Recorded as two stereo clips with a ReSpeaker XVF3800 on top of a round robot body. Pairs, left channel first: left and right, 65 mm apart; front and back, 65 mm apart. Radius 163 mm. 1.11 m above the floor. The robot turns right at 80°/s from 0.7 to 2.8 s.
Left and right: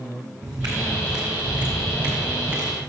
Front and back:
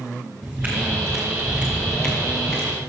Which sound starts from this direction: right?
Footsteps, at 0.4 s.